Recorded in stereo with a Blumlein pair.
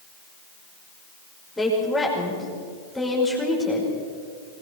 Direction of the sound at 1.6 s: 10° left.